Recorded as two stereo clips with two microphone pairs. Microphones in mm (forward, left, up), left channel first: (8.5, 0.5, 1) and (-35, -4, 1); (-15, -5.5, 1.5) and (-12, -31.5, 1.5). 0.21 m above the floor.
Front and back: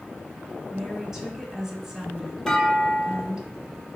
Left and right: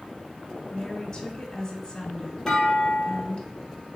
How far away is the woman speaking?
About 1.2 m.